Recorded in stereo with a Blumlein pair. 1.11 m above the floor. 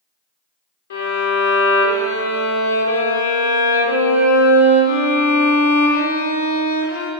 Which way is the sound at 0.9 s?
60° left.